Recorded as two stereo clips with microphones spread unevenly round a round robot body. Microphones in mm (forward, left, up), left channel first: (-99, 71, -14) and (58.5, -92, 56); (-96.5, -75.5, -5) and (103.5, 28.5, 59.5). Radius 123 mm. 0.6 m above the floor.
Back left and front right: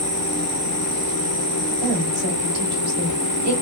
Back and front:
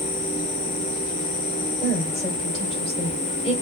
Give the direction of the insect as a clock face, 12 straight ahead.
3 o'clock.